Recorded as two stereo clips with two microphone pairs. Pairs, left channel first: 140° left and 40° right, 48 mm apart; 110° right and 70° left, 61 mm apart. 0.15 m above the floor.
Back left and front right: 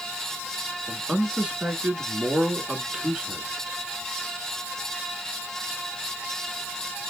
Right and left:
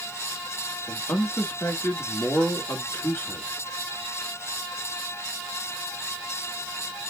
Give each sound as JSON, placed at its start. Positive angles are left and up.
{"t": 0.9, "sound": "a man speaking", "azimuth_deg": -95, "distance_m": 1.4}